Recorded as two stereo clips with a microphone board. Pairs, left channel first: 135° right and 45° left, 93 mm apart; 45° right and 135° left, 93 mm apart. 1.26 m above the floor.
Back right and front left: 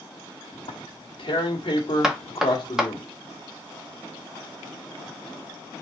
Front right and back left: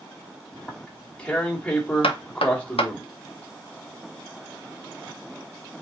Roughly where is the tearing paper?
Behind right.